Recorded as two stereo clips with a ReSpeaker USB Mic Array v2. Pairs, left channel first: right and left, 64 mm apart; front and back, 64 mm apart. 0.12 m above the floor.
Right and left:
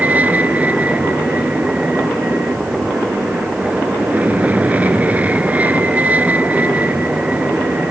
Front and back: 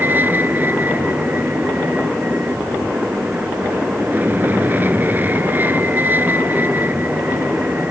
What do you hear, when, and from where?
0.0 s an aircraft: 140° left